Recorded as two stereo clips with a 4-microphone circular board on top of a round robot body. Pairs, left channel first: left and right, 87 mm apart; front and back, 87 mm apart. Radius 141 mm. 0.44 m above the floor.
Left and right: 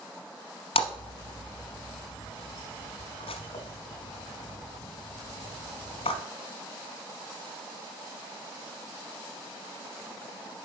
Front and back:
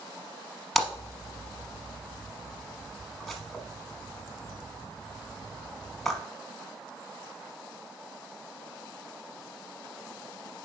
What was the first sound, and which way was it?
A splash, 90° left.